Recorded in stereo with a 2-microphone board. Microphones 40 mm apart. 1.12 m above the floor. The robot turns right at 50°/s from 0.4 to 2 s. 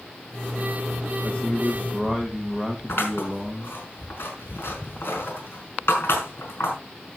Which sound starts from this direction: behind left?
A man speaking, at 1.2 s.